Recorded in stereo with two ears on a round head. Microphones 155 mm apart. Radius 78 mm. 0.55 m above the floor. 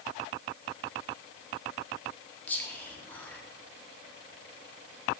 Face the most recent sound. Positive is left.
turn(degrees=10)  # may be behind; listen again after turning